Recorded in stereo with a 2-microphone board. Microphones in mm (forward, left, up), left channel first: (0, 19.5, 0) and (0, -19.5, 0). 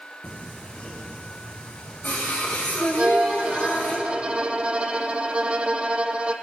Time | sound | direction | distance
0.2 | singing | 50° left (ahead or behind) | 3.5 m
3.0 | a violin | 30° right (ahead or behind) | 1.0 m